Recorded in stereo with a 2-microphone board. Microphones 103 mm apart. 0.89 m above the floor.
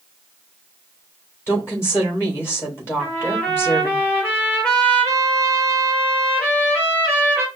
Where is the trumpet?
25° left (ahead or behind), 2.5 m.